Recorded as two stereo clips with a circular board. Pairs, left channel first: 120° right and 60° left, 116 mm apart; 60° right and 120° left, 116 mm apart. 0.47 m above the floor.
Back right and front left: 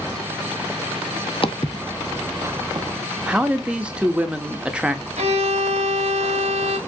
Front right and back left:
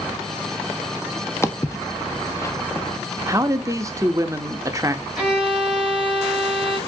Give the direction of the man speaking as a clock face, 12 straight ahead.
8 o'clock.